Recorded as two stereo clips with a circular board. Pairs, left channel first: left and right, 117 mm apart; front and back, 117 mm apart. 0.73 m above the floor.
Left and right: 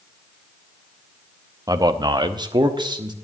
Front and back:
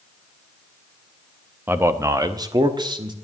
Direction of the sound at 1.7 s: 120° right.